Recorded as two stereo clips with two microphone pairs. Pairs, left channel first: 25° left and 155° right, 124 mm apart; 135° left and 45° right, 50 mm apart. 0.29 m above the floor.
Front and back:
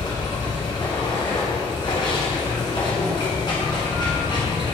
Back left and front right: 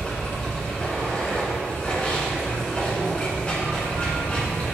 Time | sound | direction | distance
0.0 | running water | 75° left | 1.8 m